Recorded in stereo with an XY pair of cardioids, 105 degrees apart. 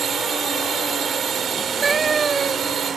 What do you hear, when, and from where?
0.0 s a drone: 50° right
1.5 s a cat meowing: 35° right